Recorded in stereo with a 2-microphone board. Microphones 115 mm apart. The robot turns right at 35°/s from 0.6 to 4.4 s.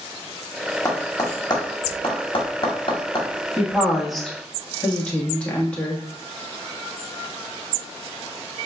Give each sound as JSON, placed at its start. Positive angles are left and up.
{"t": 0.8, "sound": "tapping", "side_deg": 30, "distance_m": 1.4}
{"t": 3.6, "sound": "a woman speaking", "side_deg": -20, "distance_m": 1.2}